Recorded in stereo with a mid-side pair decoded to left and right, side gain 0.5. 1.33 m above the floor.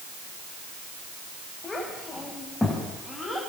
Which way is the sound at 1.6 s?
25° left.